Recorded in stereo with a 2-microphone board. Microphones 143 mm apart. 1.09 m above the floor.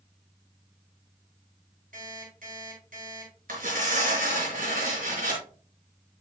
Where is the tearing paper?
80° right, 4.5 m.